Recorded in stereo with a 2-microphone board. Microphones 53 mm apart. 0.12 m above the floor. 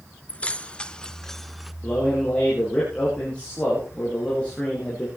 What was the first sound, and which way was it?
Keys jangling, 25° left (ahead or behind).